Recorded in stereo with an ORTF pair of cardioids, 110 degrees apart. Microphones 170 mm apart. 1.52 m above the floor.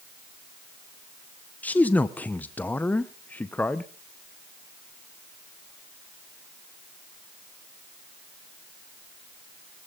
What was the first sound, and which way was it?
A man speaking, 10° left.